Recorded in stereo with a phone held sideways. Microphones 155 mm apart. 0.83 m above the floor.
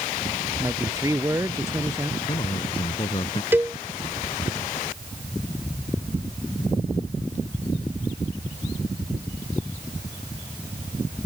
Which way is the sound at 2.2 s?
35° left (ahead or behind).